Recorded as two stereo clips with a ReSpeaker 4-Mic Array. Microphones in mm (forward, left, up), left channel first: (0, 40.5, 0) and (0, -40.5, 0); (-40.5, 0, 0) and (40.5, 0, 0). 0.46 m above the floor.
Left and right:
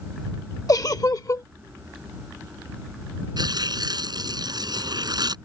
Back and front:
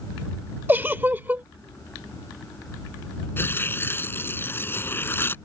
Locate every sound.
0.7 s a giggle: 60° left
3.4 s tearing paper: 115° right